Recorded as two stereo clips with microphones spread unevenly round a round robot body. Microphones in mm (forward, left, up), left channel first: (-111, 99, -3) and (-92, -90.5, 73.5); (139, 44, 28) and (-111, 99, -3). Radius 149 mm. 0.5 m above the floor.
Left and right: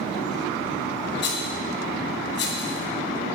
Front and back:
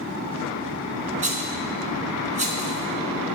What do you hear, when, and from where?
1.2 s a rattle: 105° left, 2.5 m